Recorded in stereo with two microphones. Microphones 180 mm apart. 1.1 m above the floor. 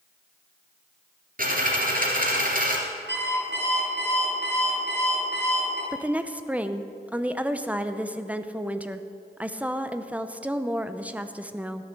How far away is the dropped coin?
About 2.5 m.